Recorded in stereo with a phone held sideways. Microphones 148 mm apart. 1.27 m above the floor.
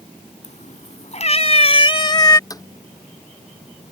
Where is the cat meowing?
60° left (ahead or behind); by 2.4 s 25° left (ahead or behind).